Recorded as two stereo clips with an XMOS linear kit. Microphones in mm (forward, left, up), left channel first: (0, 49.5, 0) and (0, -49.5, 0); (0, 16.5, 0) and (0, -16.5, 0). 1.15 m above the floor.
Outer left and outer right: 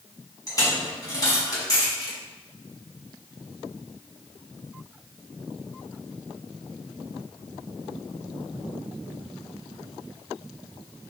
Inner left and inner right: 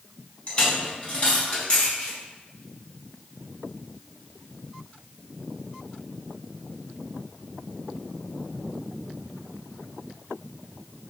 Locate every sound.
0.5 s a dropped coin: 35° left (ahead or behind), 4.5 m